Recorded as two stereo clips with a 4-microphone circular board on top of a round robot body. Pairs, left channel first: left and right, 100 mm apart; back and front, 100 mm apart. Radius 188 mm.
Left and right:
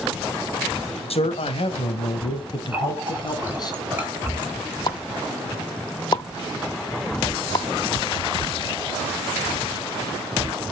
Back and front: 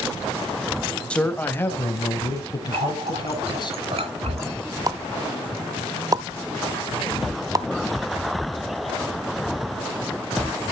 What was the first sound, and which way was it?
A man speaking, 100° left.